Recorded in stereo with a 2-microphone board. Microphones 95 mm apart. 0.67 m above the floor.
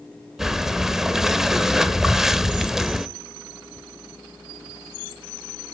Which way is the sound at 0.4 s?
5° right (ahead or behind).